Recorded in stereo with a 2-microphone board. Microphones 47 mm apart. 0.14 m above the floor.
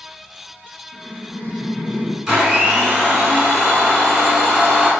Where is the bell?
No bell in this recording.